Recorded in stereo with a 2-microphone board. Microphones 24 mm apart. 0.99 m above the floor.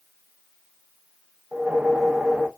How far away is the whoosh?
About 0.6 m.